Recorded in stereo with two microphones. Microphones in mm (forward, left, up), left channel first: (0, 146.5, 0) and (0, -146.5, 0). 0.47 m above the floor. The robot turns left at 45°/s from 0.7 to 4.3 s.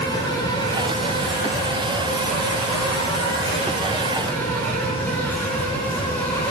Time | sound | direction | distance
0.0 | an insect | 165° left | 3.5 m